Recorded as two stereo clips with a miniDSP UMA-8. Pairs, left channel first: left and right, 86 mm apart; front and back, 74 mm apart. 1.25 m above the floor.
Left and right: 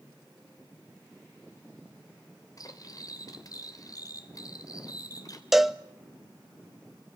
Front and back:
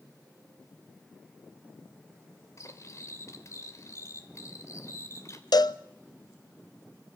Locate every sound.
2.6 s cutlery clinking: 45° left, 2.5 m
5.5 s a cowbell: 5° right, 0.8 m